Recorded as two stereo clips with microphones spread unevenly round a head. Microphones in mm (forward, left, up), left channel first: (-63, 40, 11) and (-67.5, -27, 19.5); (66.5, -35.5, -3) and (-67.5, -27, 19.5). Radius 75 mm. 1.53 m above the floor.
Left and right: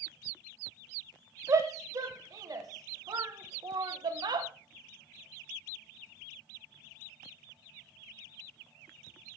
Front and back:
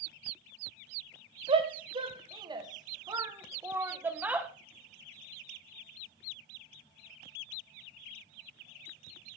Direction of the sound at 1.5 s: 130° right.